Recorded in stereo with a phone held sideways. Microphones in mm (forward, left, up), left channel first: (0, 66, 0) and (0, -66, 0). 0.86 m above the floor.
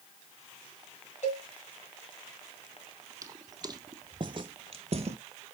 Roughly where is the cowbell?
Left.